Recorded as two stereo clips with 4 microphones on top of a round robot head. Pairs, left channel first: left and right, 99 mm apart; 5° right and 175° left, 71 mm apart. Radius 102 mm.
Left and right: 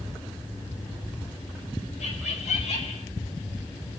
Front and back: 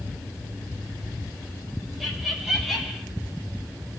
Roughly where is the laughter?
Left.